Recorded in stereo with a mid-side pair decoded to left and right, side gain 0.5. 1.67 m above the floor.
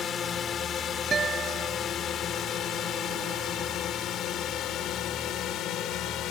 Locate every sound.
0.0 s a drone: 45° left; by 6.3 s 70° left
1.1 s a guitar: 40° right